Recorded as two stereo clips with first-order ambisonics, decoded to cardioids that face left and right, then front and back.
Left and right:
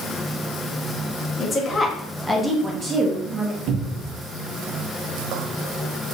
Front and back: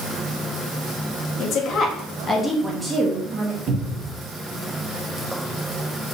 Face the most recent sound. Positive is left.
turn(degrees=-130)